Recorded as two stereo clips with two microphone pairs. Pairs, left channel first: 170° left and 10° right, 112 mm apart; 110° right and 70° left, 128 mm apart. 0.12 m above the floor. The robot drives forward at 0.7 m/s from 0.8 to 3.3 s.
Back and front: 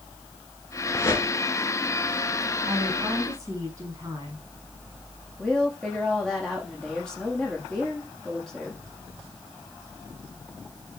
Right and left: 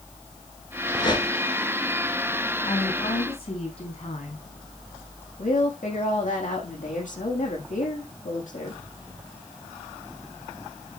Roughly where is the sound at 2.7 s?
Ahead right.